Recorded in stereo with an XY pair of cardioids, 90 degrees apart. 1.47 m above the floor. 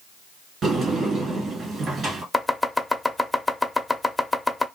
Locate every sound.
0.6 s a sliding door: 65° right, 1.7 m
2.3 s chopping: 10° left, 0.6 m